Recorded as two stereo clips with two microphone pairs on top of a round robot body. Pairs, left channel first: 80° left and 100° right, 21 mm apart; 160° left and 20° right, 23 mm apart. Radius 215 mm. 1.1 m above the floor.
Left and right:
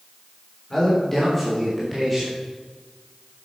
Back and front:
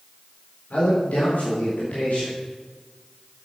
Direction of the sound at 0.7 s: 150° left.